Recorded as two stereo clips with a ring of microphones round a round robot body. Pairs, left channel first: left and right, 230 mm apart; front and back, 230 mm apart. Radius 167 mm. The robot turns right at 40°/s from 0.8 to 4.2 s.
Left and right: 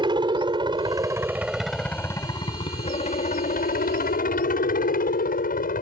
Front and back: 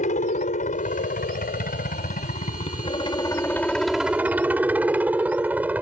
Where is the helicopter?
35° right; by 5.8 s 100° left.